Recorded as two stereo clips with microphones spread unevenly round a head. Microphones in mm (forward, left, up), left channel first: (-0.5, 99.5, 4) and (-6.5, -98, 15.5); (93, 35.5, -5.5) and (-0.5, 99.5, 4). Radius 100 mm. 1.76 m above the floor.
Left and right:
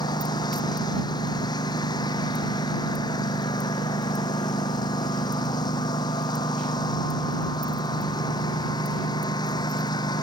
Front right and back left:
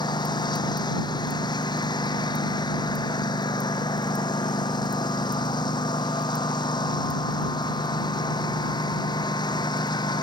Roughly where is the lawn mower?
Ahead.